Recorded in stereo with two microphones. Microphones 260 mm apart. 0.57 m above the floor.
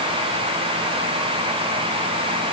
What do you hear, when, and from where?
Only background noise.